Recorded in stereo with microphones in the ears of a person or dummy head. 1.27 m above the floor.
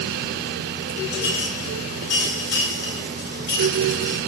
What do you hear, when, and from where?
1.1 s a clink: 70° left (ahead or behind), 5 m